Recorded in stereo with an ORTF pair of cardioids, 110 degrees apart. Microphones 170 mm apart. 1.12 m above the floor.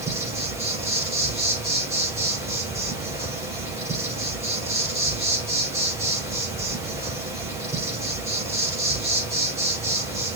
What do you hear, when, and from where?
0.0 s an insect: 20° right, 4.5 m